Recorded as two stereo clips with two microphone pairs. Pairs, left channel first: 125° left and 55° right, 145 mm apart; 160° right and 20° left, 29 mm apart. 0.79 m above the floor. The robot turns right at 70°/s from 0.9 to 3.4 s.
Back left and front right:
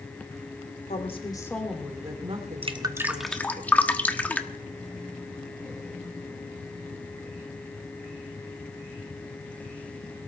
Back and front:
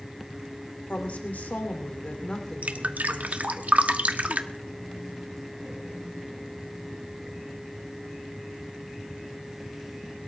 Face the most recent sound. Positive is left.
turn(degrees=45)